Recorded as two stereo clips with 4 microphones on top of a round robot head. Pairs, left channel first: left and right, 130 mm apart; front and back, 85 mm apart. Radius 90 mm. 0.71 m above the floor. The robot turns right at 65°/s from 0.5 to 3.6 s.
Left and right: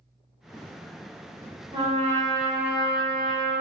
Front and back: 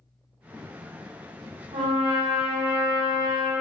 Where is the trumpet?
150° right, 0.8 m; by 3.5 s 30° right, 0.8 m.